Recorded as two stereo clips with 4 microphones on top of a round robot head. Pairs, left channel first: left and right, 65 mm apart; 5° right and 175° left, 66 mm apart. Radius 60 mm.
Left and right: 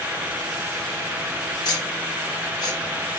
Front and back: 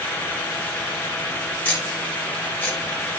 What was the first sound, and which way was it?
Ticking, 60° left.